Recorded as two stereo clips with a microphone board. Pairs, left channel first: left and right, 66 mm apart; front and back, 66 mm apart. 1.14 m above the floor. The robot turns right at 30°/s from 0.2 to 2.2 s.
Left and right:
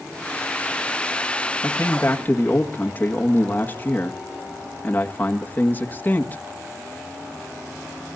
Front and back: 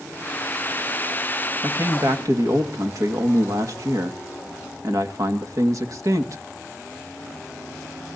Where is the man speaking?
135° left, 1.7 m; by 6.4 s 150° left, 1.7 m.